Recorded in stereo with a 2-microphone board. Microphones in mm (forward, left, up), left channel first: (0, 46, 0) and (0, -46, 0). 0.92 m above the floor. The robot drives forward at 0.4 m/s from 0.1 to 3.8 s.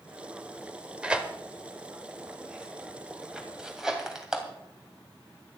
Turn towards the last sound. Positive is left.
turn(degrees=-5)  # may be behind; listen again after turning